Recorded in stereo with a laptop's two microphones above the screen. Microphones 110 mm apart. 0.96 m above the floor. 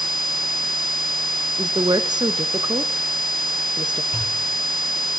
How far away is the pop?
About 7 m.